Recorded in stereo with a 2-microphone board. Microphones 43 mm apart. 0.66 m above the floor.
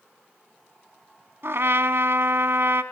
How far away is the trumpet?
About 1.1 m.